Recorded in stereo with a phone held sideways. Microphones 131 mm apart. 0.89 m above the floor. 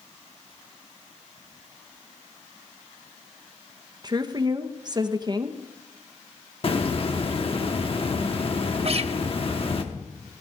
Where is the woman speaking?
35° right (ahead or behind), 0.9 m.